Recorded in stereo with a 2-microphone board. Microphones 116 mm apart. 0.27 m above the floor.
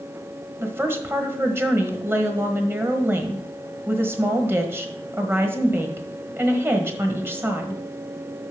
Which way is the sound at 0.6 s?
20° right (ahead or behind).